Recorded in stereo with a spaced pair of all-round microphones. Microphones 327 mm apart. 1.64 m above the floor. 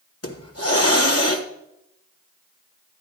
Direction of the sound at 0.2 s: 45° left (ahead or behind).